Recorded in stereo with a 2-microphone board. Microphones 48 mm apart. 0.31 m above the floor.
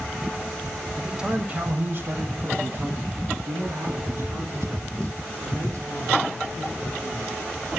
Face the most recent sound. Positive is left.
turn(degrees=-80)